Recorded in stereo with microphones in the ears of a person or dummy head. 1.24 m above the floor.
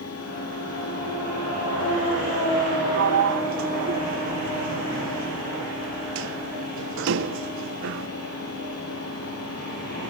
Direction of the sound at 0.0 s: 75° left (ahead or behind).